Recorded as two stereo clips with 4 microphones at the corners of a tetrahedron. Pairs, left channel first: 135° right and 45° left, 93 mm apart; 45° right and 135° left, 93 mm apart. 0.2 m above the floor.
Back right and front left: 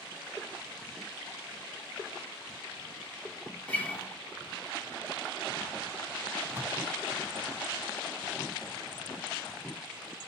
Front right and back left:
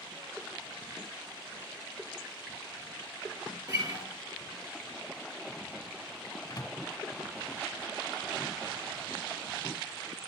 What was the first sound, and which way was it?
A guitar, 155° left.